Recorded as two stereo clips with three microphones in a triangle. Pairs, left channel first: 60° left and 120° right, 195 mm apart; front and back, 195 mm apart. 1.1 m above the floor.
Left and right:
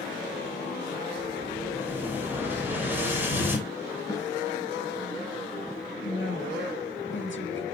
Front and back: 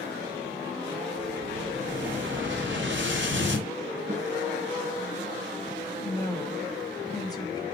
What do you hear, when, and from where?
1.2 s an explosion: 160° left, 2.5 m
4.1 s a snare drum: 130° left, 4.5 m
6.0 s a woman speaking: 70° left, 1.9 m